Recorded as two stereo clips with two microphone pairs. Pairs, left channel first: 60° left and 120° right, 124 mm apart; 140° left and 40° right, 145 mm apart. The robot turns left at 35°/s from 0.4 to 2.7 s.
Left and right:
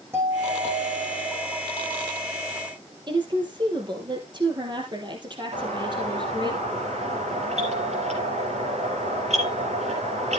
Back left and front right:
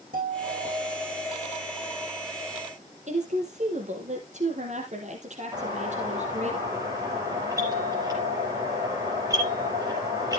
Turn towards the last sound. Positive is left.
turn(degrees=-105)